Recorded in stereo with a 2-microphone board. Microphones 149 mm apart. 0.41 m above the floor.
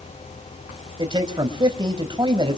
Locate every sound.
1.0 s a man speaking: 30° right (ahead or behind), 2 m